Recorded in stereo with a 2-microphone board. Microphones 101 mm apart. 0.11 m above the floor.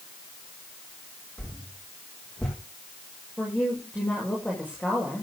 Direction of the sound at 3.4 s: 10° left (ahead or behind).